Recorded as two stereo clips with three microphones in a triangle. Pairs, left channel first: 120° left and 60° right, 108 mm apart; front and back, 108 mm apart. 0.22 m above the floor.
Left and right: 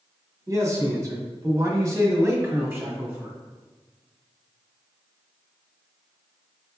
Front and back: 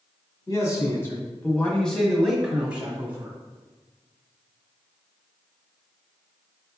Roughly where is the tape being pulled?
I don't hear tape being pulled.